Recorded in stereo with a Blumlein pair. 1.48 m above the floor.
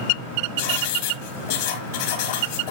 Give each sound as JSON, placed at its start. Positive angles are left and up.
{"t": 0.6, "sound": "writing", "azimuth_deg": 55, "distance_m": 2.0}